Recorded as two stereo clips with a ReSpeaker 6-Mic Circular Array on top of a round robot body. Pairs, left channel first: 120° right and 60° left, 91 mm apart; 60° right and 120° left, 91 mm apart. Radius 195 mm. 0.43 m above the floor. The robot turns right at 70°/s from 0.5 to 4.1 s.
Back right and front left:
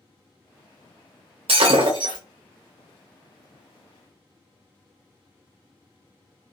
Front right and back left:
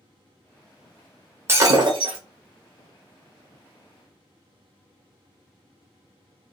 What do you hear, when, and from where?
1.5 s breaking glass: 55° left, 0.9 m; by 2.2 s 105° left, 0.9 m